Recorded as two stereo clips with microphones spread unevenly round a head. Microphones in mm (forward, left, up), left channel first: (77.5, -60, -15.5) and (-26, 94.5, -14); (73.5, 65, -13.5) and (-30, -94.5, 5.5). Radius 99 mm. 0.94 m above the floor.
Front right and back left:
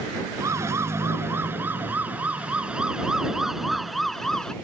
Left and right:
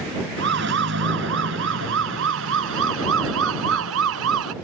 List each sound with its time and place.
0.4 s a siren: 160° right; by 4.5 s 145° right